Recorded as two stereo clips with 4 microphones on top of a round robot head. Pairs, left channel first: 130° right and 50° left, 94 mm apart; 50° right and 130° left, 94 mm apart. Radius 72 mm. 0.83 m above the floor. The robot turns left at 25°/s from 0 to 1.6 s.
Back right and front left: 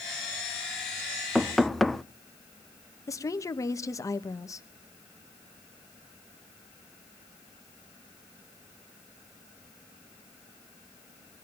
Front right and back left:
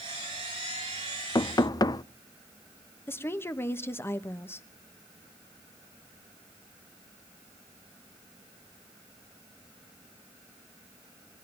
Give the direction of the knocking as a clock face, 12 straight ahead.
1 o'clock.